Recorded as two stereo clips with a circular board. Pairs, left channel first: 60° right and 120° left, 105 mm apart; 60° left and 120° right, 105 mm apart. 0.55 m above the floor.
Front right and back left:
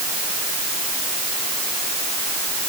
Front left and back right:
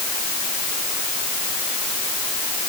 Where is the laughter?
No laughter in this recording.